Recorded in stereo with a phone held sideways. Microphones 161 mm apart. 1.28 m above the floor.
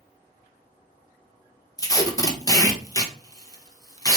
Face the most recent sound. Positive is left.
turn(degrees=20)  # may be behind; listen again after turning